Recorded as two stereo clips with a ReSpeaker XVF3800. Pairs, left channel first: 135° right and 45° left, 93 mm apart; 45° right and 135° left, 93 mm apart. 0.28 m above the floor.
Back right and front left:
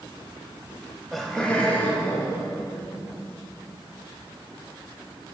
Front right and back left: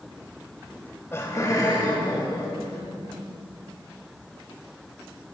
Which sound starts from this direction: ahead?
Laughter, at 0.7 s.